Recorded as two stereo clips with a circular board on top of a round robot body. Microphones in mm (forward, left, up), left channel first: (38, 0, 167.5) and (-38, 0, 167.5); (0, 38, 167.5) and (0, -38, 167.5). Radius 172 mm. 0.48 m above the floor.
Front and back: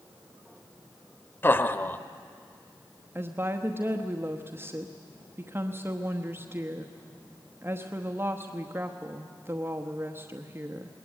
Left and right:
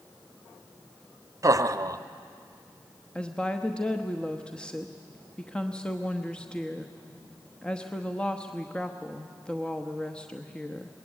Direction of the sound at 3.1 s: 155° left.